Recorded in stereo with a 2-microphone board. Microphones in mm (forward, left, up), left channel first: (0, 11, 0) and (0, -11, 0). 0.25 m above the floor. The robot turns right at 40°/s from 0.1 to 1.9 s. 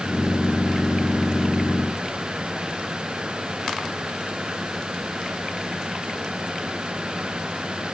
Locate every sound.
Only background noise.